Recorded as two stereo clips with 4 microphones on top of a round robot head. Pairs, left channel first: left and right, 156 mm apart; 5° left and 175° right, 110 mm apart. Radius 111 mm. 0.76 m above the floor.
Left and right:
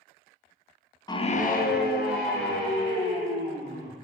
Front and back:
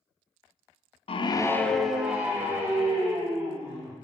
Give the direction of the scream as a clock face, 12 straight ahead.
11 o'clock.